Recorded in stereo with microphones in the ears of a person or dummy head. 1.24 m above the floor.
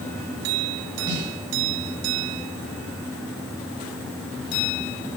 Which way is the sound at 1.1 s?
25° right (ahead or behind).